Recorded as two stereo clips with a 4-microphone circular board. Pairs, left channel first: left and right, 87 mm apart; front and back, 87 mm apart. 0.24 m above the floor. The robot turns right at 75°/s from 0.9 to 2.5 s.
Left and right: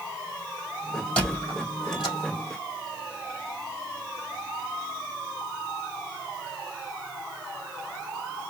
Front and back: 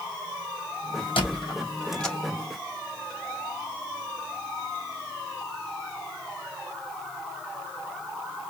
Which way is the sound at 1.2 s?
10° left.